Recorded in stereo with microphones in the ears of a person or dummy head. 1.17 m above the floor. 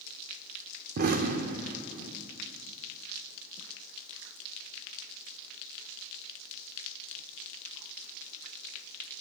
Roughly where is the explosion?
Right.